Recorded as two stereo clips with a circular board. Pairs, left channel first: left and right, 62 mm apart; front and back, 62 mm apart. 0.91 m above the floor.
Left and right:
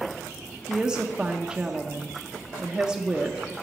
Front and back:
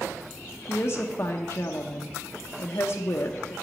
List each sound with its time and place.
0.7 s a woman speaking: 15° right, 0.6 m